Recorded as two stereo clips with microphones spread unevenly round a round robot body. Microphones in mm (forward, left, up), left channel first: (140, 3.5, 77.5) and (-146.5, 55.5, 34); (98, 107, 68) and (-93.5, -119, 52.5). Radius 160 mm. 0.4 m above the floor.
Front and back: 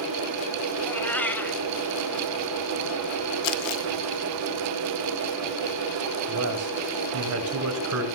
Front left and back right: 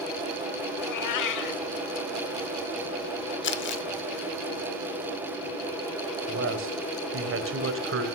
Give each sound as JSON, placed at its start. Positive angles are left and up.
{"t": 0.8, "sound": "a cat meowing", "azimuth_deg": 75, "distance_m": 0.8}
{"t": 3.4, "sound": "crumpling", "azimuth_deg": 0, "distance_m": 0.9}
{"t": 6.3, "sound": "a man speaking", "azimuth_deg": -170, "distance_m": 2.5}